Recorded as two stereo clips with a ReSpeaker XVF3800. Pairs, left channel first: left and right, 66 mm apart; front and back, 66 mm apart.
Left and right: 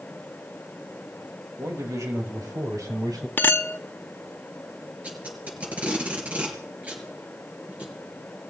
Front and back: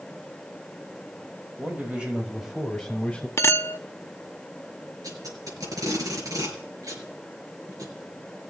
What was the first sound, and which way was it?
A man speaking, 125° right.